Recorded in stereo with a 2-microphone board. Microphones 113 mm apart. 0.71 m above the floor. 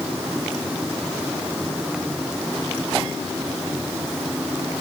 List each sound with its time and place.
Only background noise.